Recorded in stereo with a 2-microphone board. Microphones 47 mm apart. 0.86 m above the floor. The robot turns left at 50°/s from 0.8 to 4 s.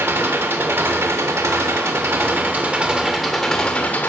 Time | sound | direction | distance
0.0 | an engine running | 55° right | 1.3 m